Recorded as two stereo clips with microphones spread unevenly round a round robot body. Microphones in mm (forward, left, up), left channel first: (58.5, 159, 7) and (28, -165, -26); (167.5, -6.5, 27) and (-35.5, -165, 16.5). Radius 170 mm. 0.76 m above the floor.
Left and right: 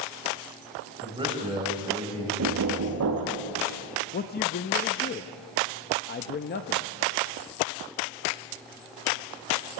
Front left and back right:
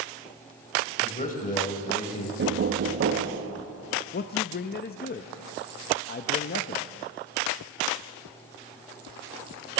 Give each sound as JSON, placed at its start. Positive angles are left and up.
{"t": 1.0, "sound": "a man speaking", "azimuth_deg": -20, "distance_m": 3.5}
{"t": 2.4, "sound": "knocking", "azimuth_deg": -120, "distance_m": 1.0}
{"t": 4.1, "sound": "a man speaking", "azimuth_deg": 35, "distance_m": 0.5}